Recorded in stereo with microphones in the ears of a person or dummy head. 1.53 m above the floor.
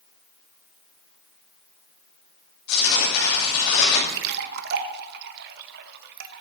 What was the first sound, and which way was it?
Tearing paper, 85° left.